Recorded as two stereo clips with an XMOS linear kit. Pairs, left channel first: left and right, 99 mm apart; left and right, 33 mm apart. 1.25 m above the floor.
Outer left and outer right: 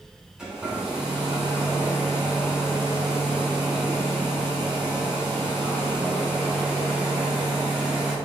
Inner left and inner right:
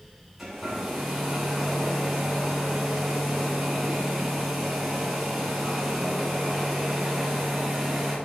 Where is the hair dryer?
10° right (ahead or behind), 2.5 m.